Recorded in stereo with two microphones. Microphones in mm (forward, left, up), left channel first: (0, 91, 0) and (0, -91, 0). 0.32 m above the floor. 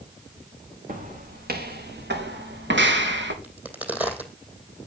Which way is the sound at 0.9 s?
50° right (ahead or behind).